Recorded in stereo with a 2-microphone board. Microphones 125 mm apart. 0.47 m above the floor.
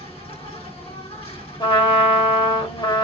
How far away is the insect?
About 2.5 m.